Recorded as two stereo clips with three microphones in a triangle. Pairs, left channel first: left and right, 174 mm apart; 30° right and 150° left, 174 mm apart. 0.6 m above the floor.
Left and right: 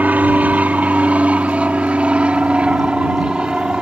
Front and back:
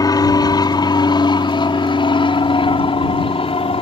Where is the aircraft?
25° right; by 3.8 s 10° right.